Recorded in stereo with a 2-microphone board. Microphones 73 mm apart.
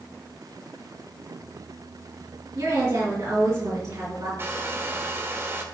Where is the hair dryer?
35° right (ahead or behind), 1.3 m.